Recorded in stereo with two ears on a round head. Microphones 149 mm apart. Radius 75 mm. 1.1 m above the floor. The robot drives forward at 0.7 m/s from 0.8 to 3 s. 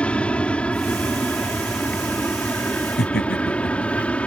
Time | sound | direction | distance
0.0 | an aircraft | 5° left (ahead or behind) | ?
3.0 | laughter | 65° left (ahead or behind) | ?